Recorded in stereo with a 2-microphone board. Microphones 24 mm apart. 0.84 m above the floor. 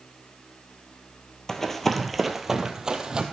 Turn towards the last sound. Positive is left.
turn(degrees=-35)  # may be behind; listen again after turning